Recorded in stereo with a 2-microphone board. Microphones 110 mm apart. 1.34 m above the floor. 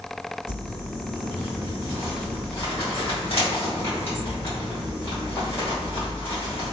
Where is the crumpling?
60° left (ahead or behind), 1.8 m.